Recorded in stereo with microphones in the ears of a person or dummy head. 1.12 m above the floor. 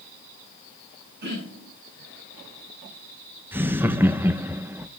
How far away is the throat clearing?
About 6.5 m.